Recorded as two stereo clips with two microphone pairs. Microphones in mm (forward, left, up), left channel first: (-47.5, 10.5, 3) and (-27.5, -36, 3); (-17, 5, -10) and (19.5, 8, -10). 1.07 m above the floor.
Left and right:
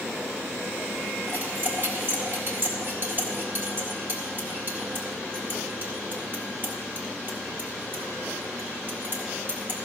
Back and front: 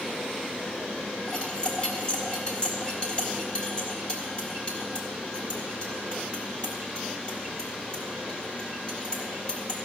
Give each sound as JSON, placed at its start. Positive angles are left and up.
{"t": 1.3, "sound": "cutlery clinking", "azimuth_deg": -115, "distance_m": 1.9}